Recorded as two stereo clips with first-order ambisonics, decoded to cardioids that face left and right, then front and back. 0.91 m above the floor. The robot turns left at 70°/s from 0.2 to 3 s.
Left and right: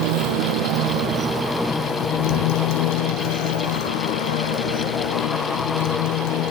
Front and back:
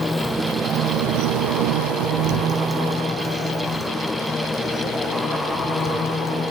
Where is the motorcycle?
80° right; by 6.5 s 70° left.